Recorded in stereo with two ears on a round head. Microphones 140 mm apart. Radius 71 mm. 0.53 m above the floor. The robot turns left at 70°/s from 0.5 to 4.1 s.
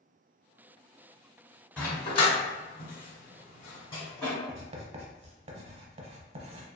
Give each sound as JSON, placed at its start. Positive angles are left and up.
{"t": 1.8, "sound": "a dog barking", "side_deg": 5, "distance_m": 1.2}
{"t": 4.5, "sound": "writing", "side_deg": -40, "distance_m": 0.5}